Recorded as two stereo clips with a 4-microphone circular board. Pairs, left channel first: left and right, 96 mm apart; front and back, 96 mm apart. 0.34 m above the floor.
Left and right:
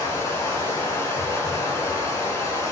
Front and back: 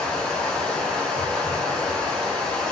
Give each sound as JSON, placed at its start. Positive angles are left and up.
{"t": 0.0, "sound": "running water", "azimuth_deg": 80, "distance_m": 1.3}